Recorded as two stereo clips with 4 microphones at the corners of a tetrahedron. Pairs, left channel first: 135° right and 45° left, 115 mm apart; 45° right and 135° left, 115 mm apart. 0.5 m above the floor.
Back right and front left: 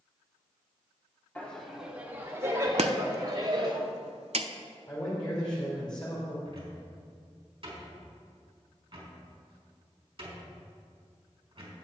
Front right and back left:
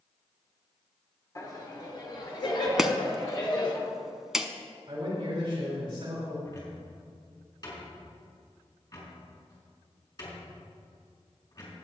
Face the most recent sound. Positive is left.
turn(degrees=5)